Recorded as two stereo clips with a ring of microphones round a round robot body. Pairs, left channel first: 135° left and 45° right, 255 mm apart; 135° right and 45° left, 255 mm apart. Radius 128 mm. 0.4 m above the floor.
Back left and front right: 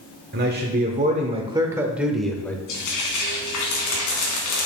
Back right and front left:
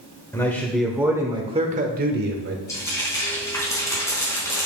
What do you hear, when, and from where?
0.3 s a man speaking: 60° right, 1.2 m; by 2.6 s 55° left, 1.3 m
2.7 s frying: 145° left, 3 m